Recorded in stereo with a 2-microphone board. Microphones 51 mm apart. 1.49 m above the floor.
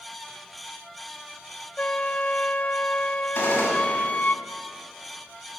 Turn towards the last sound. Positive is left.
turn(degrees=35)  # may be behind; listen again after turning